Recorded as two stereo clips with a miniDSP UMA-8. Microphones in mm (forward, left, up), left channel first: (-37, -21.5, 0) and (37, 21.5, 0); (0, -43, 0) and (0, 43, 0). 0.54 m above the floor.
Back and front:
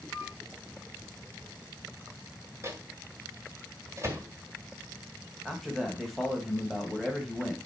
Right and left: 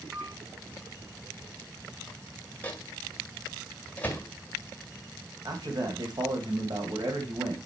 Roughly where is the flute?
Left.